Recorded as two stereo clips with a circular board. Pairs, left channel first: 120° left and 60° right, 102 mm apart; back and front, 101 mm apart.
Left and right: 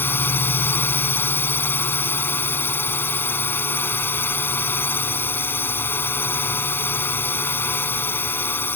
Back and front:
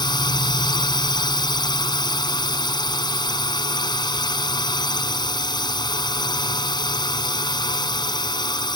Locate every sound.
0.0 s a drone: straight behind